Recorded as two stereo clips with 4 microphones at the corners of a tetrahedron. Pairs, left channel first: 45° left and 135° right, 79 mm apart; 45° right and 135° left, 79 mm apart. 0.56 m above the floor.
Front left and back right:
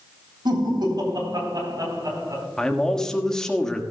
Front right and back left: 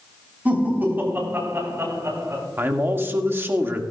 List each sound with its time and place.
0.5 s laughter: 155° right, 3.5 m; by 2.5 s 175° right, 4 m
2.6 s a man speaking: 120° left, 1.2 m